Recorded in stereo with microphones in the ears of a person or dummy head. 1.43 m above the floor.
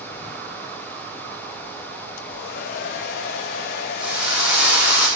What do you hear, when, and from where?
2.2 s a hair dryer: 55° left (ahead or behind), 1.0 m
4.0 s a drill: 5° right (ahead or behind), 6.5 m